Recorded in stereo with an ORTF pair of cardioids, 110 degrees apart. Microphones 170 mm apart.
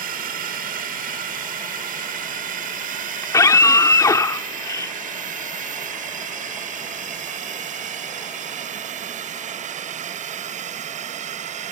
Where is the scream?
20° left.